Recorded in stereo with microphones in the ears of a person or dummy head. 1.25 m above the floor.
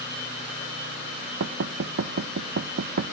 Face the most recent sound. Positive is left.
turn(degrees=-55)  # may be behind; listen again after turning